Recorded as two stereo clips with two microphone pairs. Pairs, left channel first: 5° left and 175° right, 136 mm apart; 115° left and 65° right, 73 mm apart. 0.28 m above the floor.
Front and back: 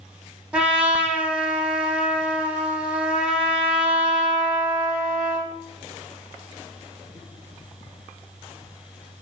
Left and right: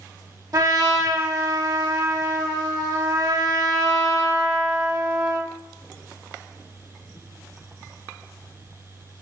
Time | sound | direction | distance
0.5 | a trumpet | 95° right | 0.6 m